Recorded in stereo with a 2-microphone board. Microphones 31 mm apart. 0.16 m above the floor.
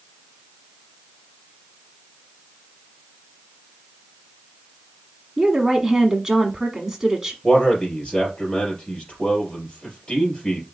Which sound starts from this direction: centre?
A woman speaking, at 5.4 s.